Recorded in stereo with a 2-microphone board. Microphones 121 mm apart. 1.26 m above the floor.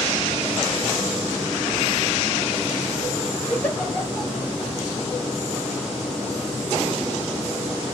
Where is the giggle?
15° left (ahead or behind), 1.0 m.